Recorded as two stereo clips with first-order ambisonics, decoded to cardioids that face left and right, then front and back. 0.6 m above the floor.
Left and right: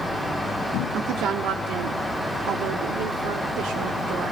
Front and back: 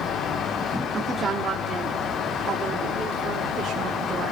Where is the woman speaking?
110° right, 1.3 m; by 4.3 s 120° right, 3 m.